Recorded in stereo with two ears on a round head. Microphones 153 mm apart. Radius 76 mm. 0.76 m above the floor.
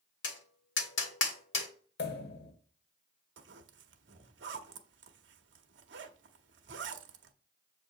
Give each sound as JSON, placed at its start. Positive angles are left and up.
{"t": 0.2, "sound": "tapping", "side_deg": 80, "distance_m": 1.6}
{"t": 2.0, "sound": "a pop", "side_deg": 65, "distance_m": 1.0}
{"t": 3.4, "sound": "a zipper", "side_deg": -75, "distance_m": 0.8}